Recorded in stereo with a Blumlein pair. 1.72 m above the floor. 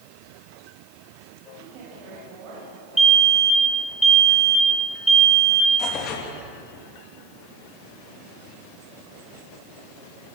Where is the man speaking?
40° right, 9 m.